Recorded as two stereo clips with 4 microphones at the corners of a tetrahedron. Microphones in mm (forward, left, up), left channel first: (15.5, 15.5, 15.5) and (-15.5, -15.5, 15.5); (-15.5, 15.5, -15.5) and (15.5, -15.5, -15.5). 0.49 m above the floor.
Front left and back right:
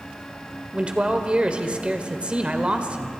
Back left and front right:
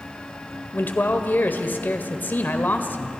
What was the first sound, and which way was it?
A man speaking, 160° left.